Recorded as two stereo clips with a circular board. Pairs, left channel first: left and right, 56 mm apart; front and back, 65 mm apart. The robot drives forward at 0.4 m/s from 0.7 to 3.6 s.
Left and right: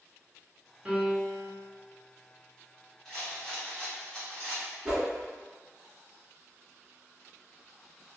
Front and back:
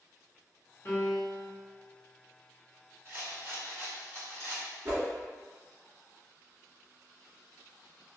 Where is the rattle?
165° left, 1.9 m; by 4.7 s 170° left, 2 m.